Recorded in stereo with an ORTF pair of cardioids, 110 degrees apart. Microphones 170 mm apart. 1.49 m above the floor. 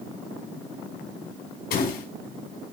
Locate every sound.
1.7 s a door slam: 65° left, 5.5 m